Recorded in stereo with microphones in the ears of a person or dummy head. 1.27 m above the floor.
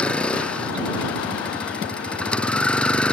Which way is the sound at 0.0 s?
5° left (ahead or behind).